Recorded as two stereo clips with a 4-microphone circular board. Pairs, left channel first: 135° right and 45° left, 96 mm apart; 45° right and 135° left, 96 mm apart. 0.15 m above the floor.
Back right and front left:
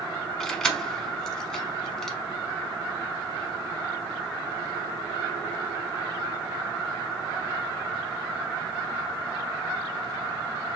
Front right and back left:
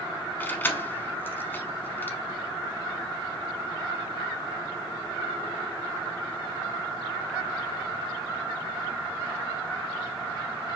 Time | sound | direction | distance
0.4 | keys jangling | 60° right | 0.7 m